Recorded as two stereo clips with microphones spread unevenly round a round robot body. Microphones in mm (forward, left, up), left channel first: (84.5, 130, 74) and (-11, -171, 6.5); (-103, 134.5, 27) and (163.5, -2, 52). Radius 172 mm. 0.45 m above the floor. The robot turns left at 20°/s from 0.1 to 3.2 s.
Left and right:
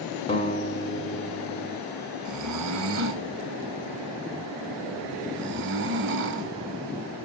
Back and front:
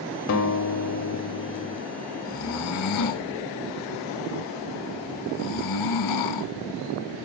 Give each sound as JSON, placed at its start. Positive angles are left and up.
{"t": 0.3, "sound": "a guitar", "azimuth_deg": 150, "distance_m": 1.1}
{"t": 2.2, "sound": "snoring", "azimuth_deg": -150, "distance_m": 0.6}